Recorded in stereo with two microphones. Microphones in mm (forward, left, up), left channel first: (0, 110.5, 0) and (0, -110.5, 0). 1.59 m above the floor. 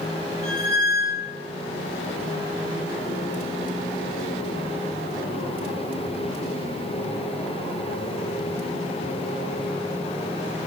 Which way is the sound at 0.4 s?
Centre (ahead or behind).